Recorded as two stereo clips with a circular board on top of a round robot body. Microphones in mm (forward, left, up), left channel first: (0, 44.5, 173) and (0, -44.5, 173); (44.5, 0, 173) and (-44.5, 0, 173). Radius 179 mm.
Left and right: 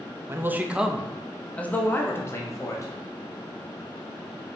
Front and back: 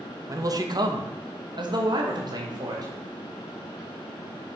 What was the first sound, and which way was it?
A man speaking, 145° right.